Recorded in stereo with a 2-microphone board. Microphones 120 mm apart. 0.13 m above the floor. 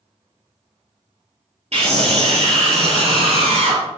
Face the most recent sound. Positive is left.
turn(degrees=-65)  # may be behind; listen again after turning